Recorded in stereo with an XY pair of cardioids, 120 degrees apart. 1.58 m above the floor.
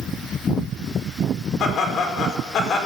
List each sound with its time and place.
1.6 s laughter: 60° left, 4.5 m